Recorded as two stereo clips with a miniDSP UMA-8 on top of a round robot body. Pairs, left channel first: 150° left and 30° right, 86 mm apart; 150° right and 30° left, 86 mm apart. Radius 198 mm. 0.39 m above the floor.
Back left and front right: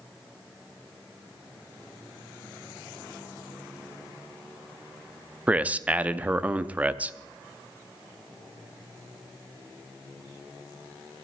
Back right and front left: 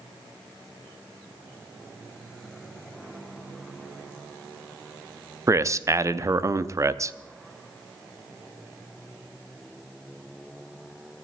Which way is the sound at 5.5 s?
30° left.